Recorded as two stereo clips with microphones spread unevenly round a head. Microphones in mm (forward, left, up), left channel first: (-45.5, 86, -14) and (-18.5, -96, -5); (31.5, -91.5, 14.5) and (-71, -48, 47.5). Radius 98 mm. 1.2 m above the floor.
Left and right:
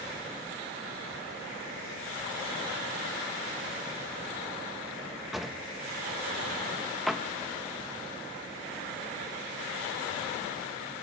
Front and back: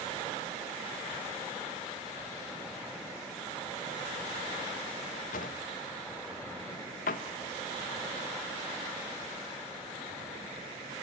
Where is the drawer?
5° left, 0.6 m.